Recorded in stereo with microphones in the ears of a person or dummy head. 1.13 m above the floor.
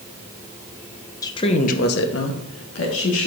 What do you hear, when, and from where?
1.2 s a woman speaking: 15° left (ahead or behind), 0.9 m; by 3.3 s 65° left (ahead or behind), 1.6 m